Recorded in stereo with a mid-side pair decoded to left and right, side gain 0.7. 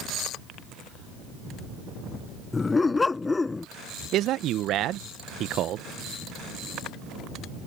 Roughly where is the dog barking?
Ahead.